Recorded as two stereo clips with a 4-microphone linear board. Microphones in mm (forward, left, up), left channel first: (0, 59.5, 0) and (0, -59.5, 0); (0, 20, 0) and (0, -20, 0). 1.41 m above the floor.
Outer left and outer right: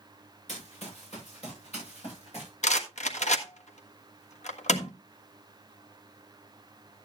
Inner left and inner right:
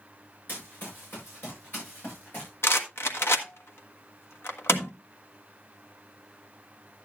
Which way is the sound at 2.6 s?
75° left (ahead or behind).